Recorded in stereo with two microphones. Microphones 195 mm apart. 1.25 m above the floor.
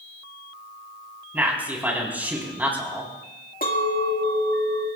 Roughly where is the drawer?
No drawer in this recording.